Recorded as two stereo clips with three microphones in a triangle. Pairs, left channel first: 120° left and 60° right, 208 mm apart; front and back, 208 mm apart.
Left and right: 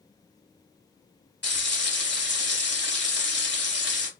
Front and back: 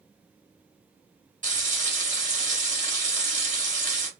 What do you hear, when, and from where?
1.4 s frying: 135° left, 1.9 m